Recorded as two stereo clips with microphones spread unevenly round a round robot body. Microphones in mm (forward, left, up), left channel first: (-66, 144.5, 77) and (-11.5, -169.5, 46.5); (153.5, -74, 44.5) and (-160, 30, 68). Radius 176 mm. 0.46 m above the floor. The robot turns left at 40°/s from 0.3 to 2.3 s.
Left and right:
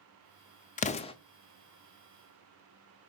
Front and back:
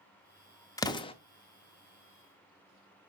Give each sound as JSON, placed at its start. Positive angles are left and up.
{"t": 0.8, "sound": "an explosion", "azimuth_deg": 45, "distance_m": 0.5}